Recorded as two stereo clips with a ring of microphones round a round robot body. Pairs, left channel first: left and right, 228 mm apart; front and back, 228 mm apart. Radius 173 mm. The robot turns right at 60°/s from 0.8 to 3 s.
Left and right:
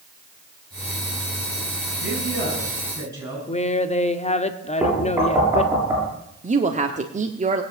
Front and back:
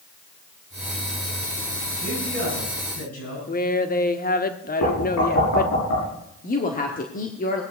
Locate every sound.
2.0 s a man speaking: 75° right, 9.5 m; by 3.4 s 15° right, 9.5 m
3.5 s a woman speaking: 35° left, 1.5 m
4.8 s knocking: 10° right, 7 m
6.4 s a woman speaking: 40° right, 1.4 m